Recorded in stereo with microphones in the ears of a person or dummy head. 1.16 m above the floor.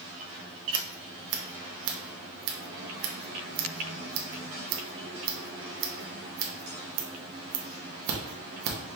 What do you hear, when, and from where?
0.7 s scissors: 65° right (ahead or behind), 0.8 m